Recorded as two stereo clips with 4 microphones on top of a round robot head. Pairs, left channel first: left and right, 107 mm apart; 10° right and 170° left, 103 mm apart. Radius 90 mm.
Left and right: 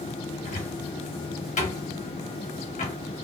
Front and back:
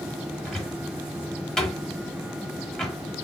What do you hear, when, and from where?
0.5 s a cupboard door: 75° left, 1.6 m